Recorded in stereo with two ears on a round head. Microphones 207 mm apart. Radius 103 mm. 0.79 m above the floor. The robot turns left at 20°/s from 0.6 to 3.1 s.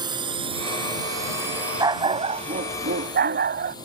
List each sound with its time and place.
0.0 s a drone: 20° right (ahead or behind); by 3.9 s 15° left (ahead or behind)
1.8 s a dog barking: 15° right (ahead or behind); by 3.8 s 40° right (ahead or behind)